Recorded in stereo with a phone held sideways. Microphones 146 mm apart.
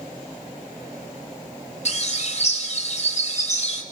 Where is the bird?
50° left (ahead or behind), 3 m.